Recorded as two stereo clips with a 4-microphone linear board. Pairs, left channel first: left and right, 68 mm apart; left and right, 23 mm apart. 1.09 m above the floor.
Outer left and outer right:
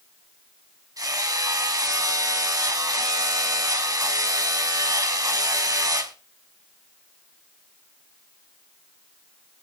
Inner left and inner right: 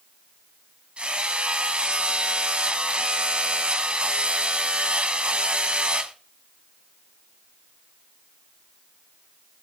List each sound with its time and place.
1.0 s hammering: 60° right (ahead or behind), 2 m